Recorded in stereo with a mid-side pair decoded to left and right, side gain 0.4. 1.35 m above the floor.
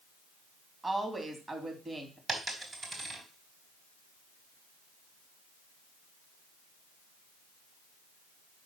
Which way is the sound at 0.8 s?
25° right.